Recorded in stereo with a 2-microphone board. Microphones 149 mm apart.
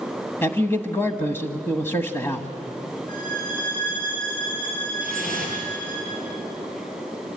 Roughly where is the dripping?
Left.